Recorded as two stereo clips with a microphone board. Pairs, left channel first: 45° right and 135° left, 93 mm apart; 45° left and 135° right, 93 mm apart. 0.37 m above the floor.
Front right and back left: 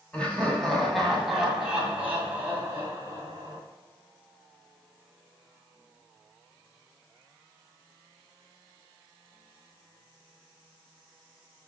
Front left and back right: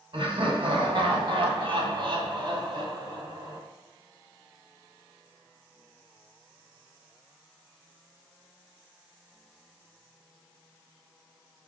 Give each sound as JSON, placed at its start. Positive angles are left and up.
{"t": 0.1, "sound": "laughter", "azimuth_deg": -120, "distance_m": 2.5}